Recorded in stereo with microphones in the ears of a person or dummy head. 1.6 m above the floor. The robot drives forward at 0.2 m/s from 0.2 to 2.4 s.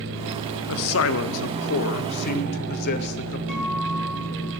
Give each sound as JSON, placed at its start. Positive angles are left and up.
{"t": 0.7, "sound": "a man speaking", "side_deg": 70, "distance_m": 0.6}
{"t": 3.5, "sound": "a guitar", "side_deg": 10, "distance_m": 6.5}